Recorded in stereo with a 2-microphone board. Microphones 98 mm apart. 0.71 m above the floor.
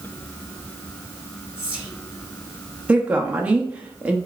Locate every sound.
1.6 s whispering: 15° right (ahead or behind), 2 m
2.9 s a woman speaking: 15° right (ahead or behind), 0.9 m